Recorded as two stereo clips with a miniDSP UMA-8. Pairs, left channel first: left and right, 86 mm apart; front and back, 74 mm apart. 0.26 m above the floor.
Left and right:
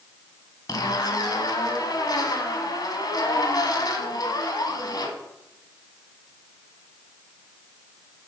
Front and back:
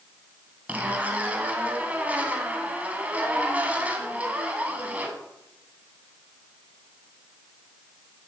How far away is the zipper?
About 1.4 m.